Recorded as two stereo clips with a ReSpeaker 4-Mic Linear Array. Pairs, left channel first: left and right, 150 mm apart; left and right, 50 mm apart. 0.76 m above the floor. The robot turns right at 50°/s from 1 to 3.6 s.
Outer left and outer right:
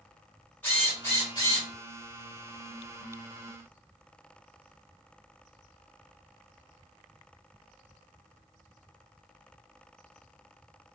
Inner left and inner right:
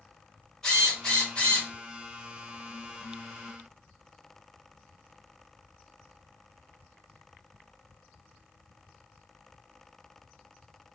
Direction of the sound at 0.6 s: 15° left.